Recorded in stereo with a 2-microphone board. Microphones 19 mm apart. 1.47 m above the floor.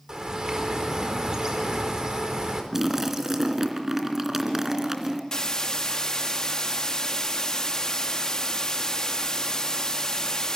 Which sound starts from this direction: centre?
A splash, at 2.7 s.